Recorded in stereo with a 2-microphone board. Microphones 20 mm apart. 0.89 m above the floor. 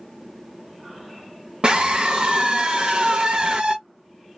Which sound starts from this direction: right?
A scream, at 1.6 s.